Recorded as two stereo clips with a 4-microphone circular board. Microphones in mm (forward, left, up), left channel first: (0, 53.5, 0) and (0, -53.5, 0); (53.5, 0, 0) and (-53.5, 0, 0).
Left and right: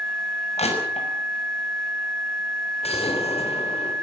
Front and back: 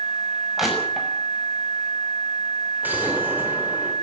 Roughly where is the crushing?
Left.